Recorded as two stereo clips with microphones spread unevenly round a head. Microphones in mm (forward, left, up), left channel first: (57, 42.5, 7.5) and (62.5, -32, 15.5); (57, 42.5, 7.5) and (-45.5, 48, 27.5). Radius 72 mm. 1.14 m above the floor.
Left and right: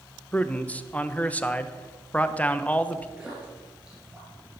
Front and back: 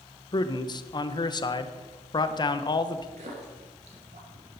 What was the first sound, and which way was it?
A man speaking, 30° left.